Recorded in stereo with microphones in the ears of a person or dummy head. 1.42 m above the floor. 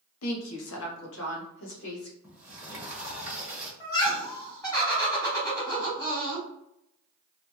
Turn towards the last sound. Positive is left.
turn(degrees=20)  # may be behind; listen again after turning